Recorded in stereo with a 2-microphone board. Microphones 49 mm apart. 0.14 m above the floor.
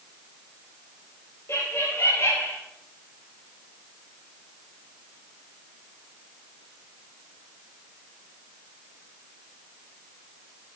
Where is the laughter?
60° left (ahead or behind), 2.5 m; by 2.6 s 55° left (ahead or behind), 2 m.